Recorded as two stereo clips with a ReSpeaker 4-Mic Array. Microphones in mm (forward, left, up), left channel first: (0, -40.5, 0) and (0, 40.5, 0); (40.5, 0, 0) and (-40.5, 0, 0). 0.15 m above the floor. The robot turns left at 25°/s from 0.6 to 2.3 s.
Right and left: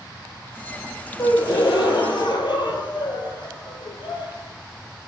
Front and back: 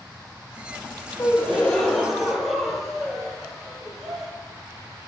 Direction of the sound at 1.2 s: 65° right.